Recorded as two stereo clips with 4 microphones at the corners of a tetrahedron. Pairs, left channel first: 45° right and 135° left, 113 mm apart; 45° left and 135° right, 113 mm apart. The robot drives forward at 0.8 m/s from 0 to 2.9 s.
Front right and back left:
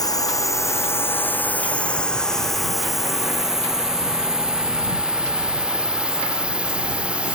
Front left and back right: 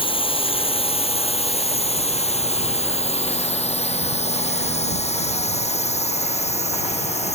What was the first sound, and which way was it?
A drone, 10° left.